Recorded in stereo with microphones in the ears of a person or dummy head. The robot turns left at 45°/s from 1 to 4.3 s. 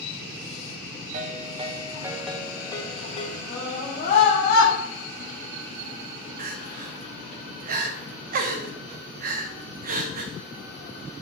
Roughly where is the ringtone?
Behind right.